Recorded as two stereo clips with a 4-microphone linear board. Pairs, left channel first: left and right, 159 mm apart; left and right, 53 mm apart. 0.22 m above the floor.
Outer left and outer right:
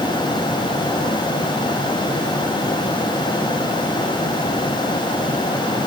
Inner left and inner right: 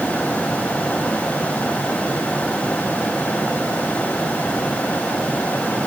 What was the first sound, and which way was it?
Only background noise.